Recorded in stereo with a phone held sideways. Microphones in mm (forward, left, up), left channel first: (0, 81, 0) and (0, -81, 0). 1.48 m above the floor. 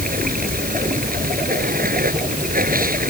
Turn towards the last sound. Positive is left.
turn(degrees=-65)  # may be behind; listen again after turning